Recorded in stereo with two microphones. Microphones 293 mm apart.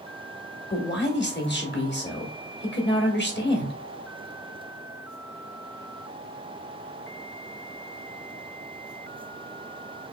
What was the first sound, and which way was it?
A man speaking, 40° left (ahead or behind).